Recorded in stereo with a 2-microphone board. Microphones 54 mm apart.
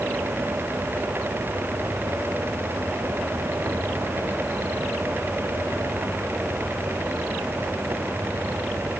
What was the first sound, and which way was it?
Only background noise.